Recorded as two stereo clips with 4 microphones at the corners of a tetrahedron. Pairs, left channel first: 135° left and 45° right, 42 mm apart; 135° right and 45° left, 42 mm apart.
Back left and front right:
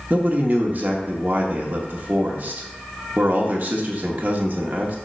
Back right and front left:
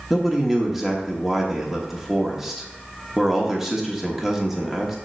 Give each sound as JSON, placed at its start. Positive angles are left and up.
{"t": 0.1, "sound": "a man speaking", "azimuth_deg": -35, "distance_m": 1.2}